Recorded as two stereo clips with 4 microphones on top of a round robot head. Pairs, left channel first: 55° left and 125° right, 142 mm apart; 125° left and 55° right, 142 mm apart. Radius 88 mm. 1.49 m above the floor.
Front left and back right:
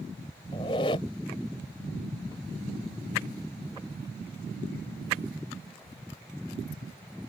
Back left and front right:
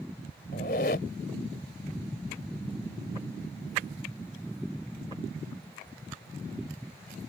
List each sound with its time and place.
0.5 s a squeak: 110° left